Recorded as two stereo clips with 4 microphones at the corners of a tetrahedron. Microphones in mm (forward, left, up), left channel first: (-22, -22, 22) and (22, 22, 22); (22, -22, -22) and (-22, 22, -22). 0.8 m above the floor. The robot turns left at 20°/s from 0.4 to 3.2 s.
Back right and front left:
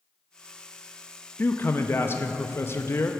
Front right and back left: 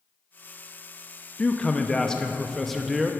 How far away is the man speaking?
About 0.5 m.